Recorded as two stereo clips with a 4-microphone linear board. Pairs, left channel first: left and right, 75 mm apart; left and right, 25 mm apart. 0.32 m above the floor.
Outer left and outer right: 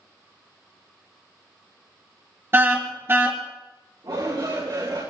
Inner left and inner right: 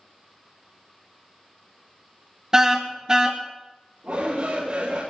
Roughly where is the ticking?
I don't hear ticking.